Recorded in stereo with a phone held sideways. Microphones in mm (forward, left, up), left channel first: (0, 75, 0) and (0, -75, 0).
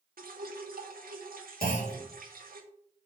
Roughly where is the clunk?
Left.